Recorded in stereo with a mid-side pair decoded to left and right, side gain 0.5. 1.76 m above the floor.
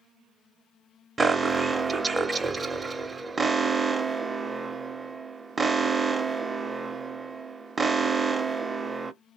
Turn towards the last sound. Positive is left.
turn(degrees=-20)